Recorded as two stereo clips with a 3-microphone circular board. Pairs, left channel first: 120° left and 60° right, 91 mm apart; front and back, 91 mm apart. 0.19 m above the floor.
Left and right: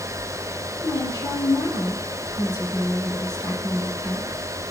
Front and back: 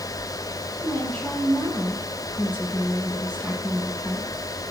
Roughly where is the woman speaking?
Left.